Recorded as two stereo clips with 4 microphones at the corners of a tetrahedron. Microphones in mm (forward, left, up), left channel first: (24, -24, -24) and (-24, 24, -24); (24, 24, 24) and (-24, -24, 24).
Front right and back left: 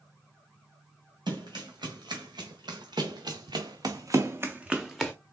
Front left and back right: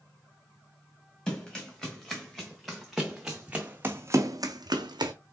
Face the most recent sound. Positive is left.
turn(degrees=-130)